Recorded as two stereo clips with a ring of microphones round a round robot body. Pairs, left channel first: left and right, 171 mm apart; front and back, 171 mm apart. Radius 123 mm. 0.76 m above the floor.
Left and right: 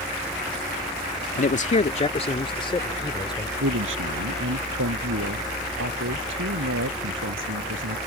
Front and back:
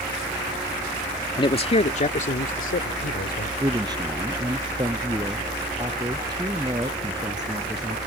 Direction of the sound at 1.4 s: 60° left.